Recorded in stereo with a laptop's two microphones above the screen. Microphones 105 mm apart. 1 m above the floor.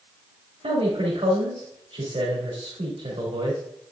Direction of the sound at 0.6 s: 80° right.